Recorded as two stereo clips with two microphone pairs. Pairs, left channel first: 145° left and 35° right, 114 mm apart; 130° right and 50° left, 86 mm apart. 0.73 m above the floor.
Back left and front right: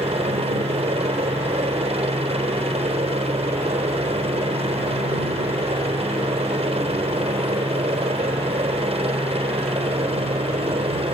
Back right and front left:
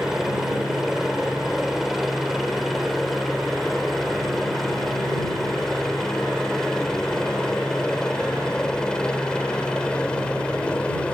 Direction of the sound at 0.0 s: 35° right.